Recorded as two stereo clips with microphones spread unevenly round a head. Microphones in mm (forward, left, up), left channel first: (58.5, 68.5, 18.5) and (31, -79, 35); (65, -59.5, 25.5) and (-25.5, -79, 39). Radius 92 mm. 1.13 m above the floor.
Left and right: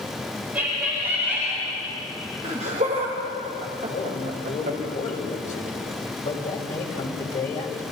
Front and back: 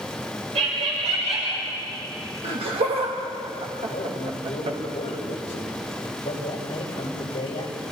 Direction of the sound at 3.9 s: 45° left.